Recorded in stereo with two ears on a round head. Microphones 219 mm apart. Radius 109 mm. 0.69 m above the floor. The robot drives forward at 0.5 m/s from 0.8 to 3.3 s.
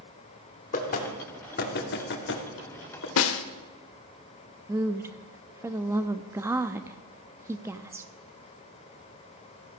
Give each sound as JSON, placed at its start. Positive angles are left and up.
{"t": 0.7, "sound": "knocking", "side_deg": 35, "distance_m": 1.9}
{"t": 3.2, "sound": "a snare drum", "side_deg": 60, "distance_m": 0.9}
{"t": 4.7, "sound": "a woman speaking", "side_deg": -10, "distance_m": 0.5}